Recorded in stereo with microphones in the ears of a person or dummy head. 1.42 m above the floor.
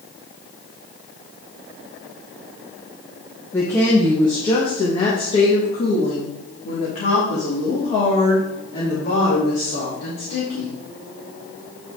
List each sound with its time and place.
3.5 s a woman speaking: 15° left (ahead or behind), 1.4 m; by 10.8 s 55° left (ahead or behind), 5 m